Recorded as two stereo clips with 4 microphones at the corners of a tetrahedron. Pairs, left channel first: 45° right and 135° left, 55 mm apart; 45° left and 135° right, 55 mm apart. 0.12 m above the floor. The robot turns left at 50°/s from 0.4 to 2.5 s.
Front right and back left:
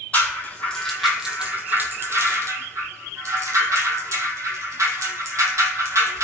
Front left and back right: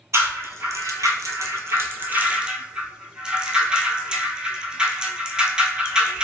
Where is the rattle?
105° right, 0.6 m; by 6.2 s 150° left, 0.6 m.